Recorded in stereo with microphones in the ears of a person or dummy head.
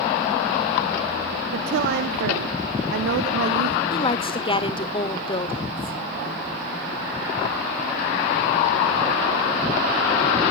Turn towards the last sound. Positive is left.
turn(degrees=30)  # may be behind; listen again after turning